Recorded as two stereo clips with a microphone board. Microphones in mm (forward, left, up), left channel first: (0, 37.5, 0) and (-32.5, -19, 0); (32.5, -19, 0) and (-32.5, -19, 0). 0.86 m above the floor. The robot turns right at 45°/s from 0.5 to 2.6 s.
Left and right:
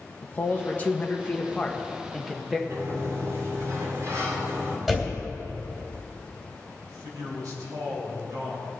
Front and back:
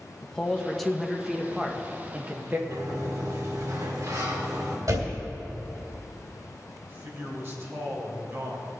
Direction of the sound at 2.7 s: 155° right.